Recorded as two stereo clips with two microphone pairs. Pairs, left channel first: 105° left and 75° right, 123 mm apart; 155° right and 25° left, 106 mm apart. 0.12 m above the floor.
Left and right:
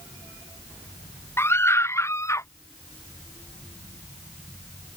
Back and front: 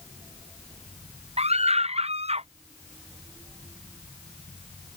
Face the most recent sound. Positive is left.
turn(degrees=35)